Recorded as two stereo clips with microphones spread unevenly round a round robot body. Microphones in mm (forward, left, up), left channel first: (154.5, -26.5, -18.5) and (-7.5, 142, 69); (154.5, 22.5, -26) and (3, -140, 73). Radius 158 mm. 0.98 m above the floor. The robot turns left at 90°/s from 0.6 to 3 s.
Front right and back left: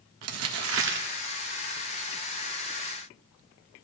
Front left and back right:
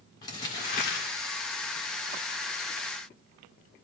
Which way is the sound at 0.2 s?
125° left.